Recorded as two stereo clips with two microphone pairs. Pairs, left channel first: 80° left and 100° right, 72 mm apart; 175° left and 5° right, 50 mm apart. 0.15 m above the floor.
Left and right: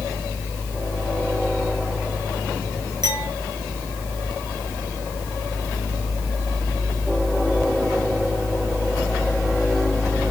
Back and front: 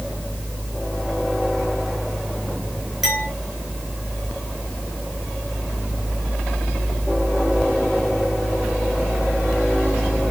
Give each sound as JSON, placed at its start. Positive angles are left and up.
{"t": 3.0, "sound": "a clink", "azimuth_deg": -90, "distance_m": 4.5}